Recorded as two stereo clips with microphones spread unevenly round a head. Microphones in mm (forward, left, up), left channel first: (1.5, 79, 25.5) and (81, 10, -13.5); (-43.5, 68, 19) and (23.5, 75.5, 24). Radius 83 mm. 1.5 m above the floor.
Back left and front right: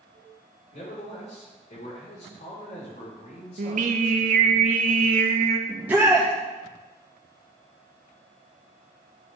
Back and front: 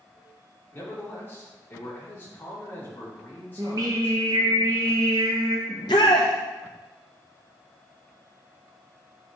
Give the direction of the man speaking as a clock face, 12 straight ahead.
8 o'clock.